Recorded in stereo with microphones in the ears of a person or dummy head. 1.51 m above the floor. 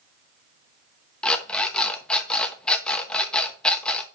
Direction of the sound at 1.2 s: 5° left (ahead or behind).